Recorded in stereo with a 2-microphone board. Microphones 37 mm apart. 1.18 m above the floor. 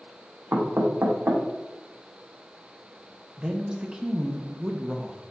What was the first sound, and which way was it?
Knocking, 75° right (ahead or behind).